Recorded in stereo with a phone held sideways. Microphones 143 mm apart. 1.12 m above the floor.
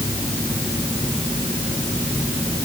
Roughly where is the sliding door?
No sliding door in this recording.